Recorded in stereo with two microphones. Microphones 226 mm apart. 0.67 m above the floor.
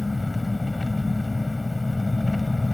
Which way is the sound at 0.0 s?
Centre (ahead or behind).